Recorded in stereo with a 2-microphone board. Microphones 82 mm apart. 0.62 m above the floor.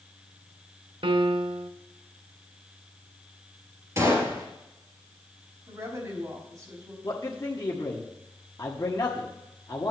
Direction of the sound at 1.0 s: 85° right.